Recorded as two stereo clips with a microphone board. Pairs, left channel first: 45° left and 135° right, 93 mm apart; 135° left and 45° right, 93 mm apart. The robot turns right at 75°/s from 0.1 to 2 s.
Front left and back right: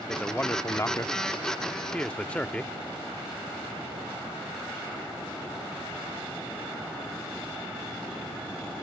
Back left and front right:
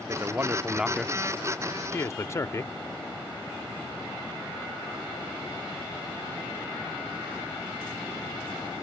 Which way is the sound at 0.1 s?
30° right.